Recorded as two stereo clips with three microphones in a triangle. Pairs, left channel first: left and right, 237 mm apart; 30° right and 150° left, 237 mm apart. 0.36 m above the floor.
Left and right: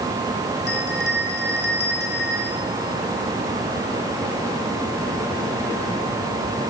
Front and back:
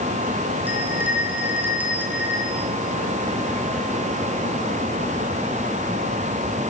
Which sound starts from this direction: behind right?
A bell, at 0.7 s.